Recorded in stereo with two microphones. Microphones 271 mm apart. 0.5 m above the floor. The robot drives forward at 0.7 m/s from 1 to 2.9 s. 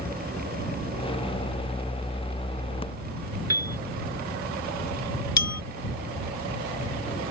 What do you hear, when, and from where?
3.5 s a piano: 65° right (ahead or behind)
5.4 s a bell: 75° left (ahead or behind)